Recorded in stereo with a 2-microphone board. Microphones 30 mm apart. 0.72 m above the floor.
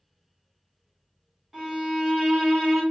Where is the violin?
10° right (ahead or behind), 1.9 m.